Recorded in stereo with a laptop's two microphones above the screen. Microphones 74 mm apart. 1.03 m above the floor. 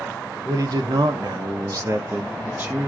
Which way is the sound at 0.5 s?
50° right (ahead or behind).